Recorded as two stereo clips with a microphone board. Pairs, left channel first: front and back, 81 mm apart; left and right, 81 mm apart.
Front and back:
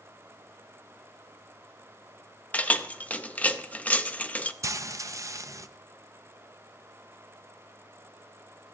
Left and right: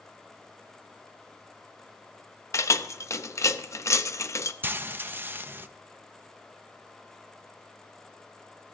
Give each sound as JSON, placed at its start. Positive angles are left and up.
{"t": 2.5, "sound": "keys jangling", "azimuth_deg": 65, "distance_m": 0.6}
{"t": 4.6, "sound": "frying", "azimuth_deg": -145, "distance_m": 0.5}